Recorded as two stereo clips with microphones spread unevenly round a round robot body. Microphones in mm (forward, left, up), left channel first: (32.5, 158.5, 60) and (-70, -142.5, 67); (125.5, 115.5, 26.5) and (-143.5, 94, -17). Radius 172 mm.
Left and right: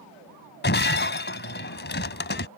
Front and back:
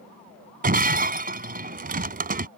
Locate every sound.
0.6 s breaking glass: 130° left